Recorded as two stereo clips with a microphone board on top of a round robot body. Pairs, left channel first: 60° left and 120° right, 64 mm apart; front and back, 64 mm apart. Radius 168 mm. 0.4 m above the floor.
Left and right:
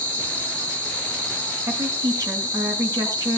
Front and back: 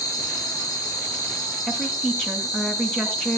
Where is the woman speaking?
80° right, 6 m.